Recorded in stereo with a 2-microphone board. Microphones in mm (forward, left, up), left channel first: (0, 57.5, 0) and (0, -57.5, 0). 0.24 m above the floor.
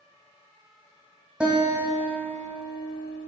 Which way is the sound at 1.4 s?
10° right (ahead or behind).